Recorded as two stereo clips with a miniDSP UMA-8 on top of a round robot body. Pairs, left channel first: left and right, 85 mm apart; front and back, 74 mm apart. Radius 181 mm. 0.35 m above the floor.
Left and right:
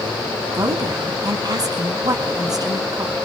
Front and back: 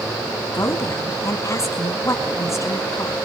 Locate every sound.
0.5 s a woman speaking: 50° right, 5 m